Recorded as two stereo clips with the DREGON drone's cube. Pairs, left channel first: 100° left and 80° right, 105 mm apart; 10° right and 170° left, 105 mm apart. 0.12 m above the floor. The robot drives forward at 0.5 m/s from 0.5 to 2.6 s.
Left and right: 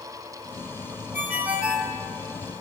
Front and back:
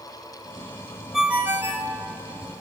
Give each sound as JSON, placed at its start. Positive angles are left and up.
{"t": 1.1, "sound": "a ringtone", "azimuth_deg": -110, "distance_m": 0.5}